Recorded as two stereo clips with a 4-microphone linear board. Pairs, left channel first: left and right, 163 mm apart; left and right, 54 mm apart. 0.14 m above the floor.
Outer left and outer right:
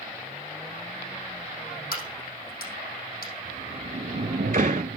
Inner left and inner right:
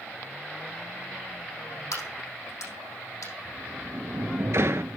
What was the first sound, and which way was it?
A crack, 75° left (ahead or behind).